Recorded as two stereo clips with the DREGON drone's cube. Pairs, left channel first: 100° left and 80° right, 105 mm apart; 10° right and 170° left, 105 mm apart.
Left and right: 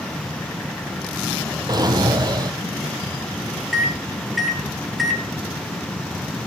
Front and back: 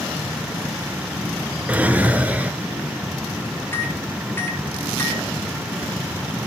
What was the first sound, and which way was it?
A drawer, 115° right.